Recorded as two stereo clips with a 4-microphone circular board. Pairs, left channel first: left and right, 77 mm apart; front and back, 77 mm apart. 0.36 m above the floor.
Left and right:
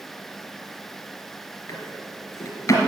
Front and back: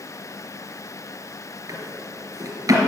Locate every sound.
1.7 s a drawer: 140° left, 2.5 m